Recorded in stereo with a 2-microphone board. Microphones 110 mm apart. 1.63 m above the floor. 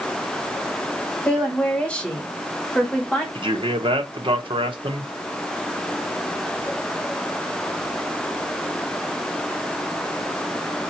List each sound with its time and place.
1.2 s a woman speaking: 10° left (ahead or behind), 1.8 m
3.4 s a man speaking: 50° right (ahead or behind), 0.9 m